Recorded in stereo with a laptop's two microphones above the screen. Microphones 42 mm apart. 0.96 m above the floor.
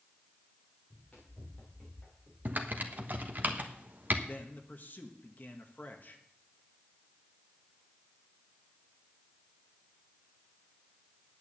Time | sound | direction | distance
0.9 | running footsteps | 20° left (ahead or behind) | 5 m
2.5 | typing on a keyboard | 45° right (ahead or behind) | 1.1 m
4.3 | a man speaking | 45° left (ahead or behind) | 1.4 m